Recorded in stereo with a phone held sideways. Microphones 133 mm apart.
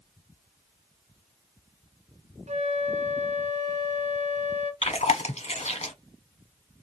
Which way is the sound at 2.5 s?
60° right (ahead or behind).